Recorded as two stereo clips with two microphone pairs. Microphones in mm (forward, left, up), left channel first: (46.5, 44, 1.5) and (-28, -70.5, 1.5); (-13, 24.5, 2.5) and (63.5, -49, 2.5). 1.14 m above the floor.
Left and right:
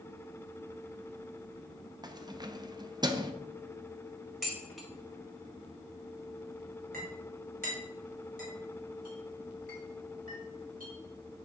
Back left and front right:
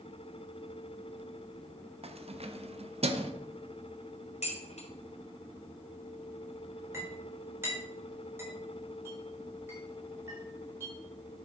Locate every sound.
2.0 s keys jangling: 65° right, 0.7 m
4.4 s dishes clattering: 145° left, 2 m
6.9 s a clink: 110° right, 3.5 m